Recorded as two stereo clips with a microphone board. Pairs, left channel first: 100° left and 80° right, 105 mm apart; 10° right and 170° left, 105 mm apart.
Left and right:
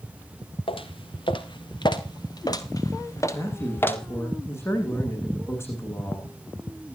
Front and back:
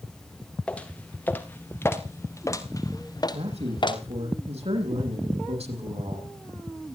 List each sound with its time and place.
0.7 s footsteps: 65° left, 4 m; by 4.0 s 30° left, 3.5 m
3.3 s a man speaking: 165° left, 10 m